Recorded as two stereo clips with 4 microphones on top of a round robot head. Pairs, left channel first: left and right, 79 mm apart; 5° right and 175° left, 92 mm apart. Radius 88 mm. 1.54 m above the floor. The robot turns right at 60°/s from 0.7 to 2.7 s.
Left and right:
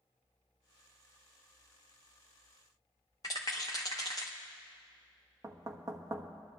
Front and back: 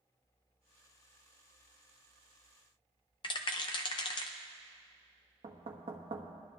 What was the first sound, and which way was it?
A rattle, 25° left.